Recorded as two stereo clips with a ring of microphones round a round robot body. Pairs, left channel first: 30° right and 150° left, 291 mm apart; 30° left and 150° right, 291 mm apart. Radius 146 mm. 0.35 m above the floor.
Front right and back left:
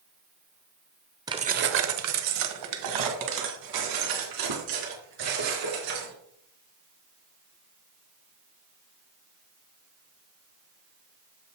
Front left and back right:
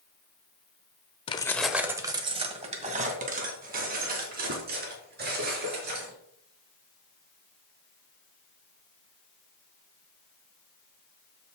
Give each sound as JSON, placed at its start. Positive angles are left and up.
{"t": 1.3, "sound": "keys jangling", "azimuth_deg": 85, "distance_m": 0.7}